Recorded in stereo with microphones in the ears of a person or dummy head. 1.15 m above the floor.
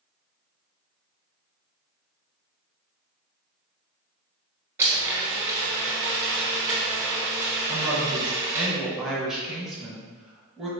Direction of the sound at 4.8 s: 15° right (ahead or behind).